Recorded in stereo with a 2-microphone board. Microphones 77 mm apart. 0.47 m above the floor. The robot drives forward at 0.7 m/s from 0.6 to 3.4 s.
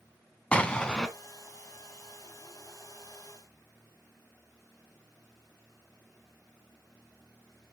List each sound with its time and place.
0.5 s an explosion: 15° left (ahead or behind), 0.9 m; by 1.1 s 10° left (ahead or behind), 1.3 m